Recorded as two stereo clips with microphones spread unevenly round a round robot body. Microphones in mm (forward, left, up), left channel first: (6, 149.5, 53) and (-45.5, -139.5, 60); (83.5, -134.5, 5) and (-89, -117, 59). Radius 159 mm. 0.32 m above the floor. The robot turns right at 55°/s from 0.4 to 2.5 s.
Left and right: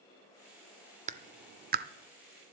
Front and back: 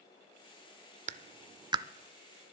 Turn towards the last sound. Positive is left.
turn(degrees=-65)